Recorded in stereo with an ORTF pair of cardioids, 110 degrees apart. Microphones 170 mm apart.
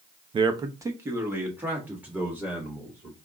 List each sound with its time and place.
0.3 s a man speaking: 30° right, 0.6 m; by 3.1 s 10° right, 3 m